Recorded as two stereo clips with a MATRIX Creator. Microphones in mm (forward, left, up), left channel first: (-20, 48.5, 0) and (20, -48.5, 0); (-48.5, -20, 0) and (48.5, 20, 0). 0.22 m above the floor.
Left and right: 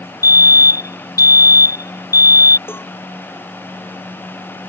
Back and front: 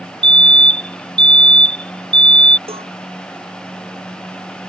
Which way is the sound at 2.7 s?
45° left.